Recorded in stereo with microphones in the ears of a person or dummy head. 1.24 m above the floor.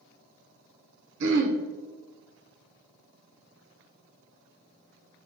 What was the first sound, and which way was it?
Throat clearing, 60° right (ahead or behind).